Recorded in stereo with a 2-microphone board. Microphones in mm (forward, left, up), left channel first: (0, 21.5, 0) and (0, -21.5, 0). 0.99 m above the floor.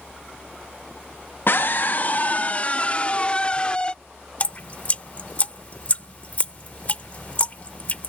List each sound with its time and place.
1.5 s a scream: 55° left (ahead or behind); by 4.0 s 25° left (ahead or behind)
4.4 s dripping: 35° left (ahead or behind)